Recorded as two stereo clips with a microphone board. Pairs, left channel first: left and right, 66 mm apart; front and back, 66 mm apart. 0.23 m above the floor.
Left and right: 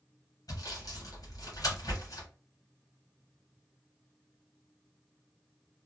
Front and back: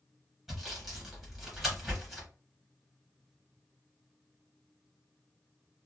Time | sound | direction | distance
0.5 | sawing | 90° left | 1.5 m